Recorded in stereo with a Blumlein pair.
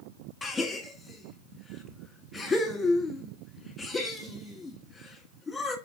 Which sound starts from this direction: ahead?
A gasp, at 0.4 s.